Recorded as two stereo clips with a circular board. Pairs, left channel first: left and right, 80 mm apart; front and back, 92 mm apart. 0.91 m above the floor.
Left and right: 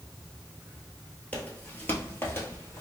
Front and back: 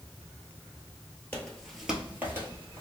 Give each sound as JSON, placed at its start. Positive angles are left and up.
{"t": 1.3, "sound": "footsteps", "azimuth_deg": 40, "distance_m": 0.9}